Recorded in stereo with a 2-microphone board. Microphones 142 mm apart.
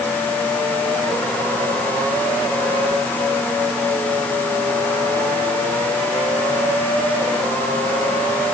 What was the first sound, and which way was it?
Only background noise.